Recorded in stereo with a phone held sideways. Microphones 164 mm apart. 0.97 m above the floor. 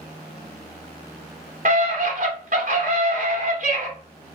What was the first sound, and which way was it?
A scream, 50° right (ahead or behind).